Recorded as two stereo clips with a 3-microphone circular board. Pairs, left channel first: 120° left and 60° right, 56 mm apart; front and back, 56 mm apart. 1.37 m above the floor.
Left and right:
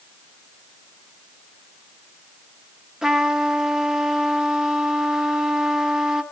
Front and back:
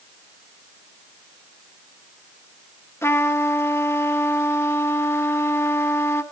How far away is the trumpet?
About 0.8 m.